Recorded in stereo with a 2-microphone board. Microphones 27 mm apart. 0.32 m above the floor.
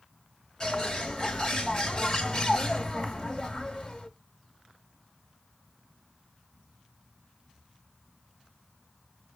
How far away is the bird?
About 1.4 m.